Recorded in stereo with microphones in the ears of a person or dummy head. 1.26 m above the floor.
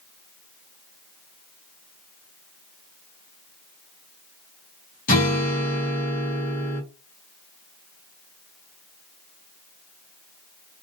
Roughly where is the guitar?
Left.